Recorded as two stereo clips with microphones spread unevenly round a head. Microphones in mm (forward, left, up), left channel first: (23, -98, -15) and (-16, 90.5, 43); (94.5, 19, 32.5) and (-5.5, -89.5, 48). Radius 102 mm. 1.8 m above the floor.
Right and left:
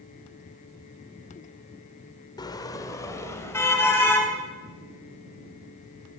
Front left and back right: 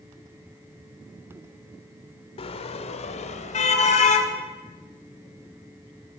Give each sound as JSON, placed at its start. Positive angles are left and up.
{"t": 2.4, "sound": "a car horn", "azimuth_deg": 0, "distance_m": 2.0}